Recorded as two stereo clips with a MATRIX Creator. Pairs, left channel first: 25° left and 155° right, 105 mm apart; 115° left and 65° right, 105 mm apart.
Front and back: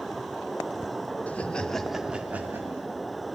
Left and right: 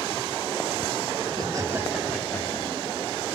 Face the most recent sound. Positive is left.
turn(degrees=140)